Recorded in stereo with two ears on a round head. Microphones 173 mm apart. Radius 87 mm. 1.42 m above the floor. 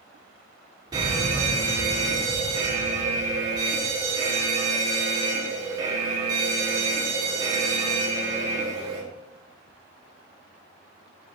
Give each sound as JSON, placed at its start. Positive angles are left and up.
{"t": 0.9, "sound": "a fire alarm", "side_deg": -20, "distance_m": 6.5}